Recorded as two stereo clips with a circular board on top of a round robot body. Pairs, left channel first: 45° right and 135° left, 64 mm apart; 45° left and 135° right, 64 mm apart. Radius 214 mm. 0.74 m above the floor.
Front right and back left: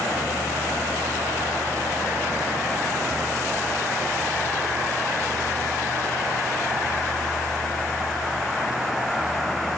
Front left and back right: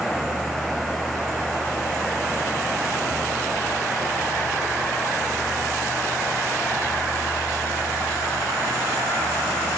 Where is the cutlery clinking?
No cutlery clinking in this recording.